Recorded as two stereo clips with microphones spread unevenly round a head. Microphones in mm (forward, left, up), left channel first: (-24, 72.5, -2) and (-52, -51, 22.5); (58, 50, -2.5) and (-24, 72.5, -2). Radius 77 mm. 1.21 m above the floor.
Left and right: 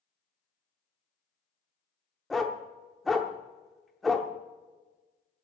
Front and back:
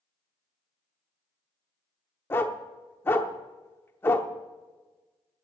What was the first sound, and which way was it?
A dog barking, 35° right.